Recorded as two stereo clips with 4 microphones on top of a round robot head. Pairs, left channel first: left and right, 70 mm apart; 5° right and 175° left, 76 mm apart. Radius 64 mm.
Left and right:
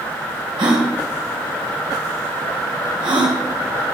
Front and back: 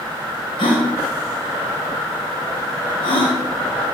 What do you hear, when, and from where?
0.6 s a gasp: 45° right, 3.5 m